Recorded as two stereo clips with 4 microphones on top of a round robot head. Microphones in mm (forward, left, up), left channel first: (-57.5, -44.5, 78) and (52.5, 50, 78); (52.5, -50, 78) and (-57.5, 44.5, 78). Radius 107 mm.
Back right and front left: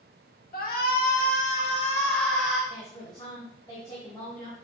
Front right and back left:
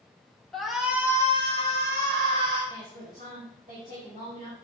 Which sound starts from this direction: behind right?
A shout, at 0.5 s.